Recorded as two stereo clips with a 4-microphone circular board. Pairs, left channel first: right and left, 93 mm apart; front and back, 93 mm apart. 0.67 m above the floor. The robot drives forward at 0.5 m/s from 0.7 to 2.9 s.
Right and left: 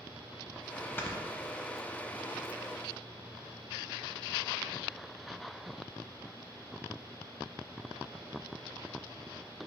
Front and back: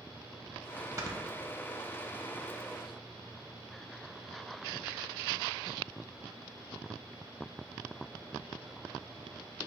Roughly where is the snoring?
Behind right.